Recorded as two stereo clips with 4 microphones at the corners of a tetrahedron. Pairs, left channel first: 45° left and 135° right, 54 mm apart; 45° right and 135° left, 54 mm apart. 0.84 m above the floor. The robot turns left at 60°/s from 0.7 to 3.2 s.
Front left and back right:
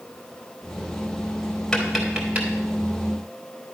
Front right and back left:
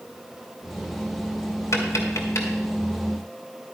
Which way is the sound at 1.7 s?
40° right.